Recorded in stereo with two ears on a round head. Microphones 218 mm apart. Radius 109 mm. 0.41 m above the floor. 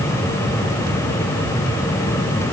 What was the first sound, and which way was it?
Only background noise.